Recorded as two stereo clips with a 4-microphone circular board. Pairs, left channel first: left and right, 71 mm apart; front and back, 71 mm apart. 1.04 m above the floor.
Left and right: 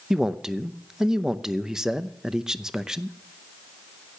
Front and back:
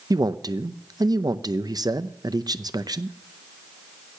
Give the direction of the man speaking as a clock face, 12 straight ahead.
6 o'clock.